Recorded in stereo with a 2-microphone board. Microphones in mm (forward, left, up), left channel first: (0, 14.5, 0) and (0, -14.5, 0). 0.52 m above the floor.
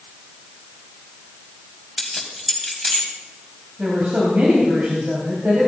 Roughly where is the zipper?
I don't hear a zipper.